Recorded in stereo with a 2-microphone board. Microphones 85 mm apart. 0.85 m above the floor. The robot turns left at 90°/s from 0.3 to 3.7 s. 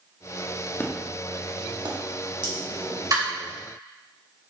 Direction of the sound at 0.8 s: 25° left (ahead or behind).